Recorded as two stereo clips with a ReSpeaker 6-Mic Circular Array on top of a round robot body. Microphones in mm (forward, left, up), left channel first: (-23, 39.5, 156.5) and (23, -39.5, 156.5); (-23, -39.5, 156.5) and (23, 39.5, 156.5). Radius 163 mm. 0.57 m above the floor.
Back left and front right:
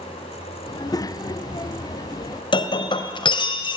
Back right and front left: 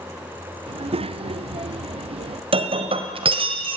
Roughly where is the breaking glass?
Left.